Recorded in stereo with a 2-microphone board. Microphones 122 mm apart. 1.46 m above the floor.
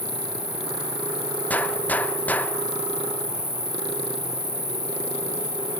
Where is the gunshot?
15° left (ahead or behind), 0.8 m.